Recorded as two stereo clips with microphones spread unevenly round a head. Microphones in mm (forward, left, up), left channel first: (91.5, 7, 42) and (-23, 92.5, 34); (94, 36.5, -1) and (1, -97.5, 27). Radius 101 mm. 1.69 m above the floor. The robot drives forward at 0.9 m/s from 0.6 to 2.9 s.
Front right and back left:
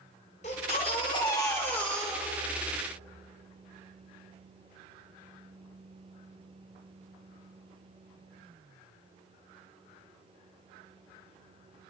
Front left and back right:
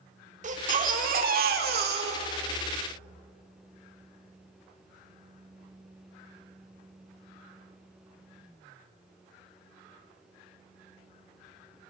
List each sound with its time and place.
0.4 s a baby crying: 95° right, 2.5 m; by 2.8 s 130° right, 3.5 m